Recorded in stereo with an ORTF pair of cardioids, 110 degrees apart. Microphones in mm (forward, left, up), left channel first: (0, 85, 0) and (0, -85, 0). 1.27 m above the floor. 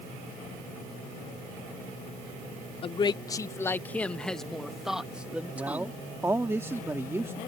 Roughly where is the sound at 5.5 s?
Ahead.